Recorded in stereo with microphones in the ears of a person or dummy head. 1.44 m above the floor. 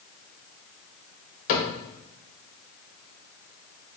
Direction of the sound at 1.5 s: 50° left (ahead or behind).